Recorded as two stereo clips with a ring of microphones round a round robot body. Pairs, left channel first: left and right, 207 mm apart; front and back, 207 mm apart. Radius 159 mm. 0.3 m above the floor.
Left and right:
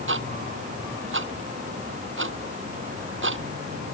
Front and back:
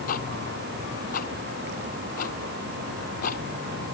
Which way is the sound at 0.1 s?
60° right.